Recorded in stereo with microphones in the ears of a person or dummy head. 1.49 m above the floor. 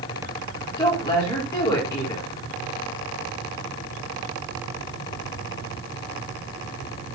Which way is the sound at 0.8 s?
15° left (ahead or behind).